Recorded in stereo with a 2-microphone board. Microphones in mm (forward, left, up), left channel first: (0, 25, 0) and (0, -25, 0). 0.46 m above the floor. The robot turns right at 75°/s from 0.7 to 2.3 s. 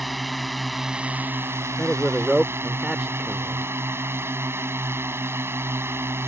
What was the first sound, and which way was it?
A drone, straight behind.